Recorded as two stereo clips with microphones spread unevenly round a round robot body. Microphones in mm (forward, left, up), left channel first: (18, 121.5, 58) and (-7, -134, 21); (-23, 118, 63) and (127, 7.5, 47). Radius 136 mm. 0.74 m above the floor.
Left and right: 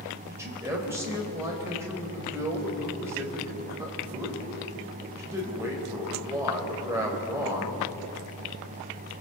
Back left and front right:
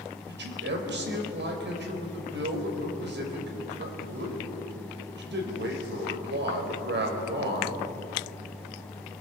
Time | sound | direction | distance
0.3 | a man speaking | 15° right | 4.5 m